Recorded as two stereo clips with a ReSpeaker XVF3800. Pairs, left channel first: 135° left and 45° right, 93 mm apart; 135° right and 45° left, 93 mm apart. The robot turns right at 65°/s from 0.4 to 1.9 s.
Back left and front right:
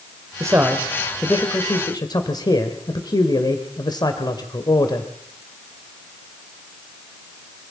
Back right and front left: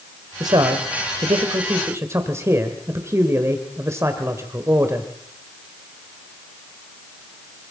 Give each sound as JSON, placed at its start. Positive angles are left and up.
{"t": 0.4, "sound": "a man speaking", "azimuth_deg": 5, "distance_m": 1.9}